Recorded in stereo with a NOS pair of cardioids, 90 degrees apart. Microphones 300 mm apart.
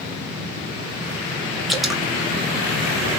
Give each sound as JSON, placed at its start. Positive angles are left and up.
{"t": 1.7, "sound": "dripping", "azimuth_deg": 0, "distance_m": 1.0}